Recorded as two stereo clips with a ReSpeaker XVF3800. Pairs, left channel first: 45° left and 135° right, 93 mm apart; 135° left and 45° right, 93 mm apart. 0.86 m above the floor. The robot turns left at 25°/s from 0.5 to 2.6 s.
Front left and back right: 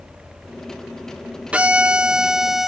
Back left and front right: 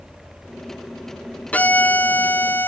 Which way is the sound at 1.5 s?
175° left.